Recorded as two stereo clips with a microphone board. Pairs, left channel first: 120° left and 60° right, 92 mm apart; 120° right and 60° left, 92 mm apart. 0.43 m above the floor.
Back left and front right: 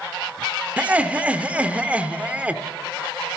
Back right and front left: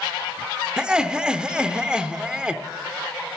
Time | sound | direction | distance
0.8 | laughter | 5° right | 0.8 m